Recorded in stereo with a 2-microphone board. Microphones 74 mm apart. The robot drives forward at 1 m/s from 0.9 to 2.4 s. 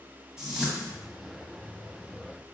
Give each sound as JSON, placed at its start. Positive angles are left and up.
{"t": 0.4, "sound": "a whoosh", "side_deg": -10, "distance_m": 1.0}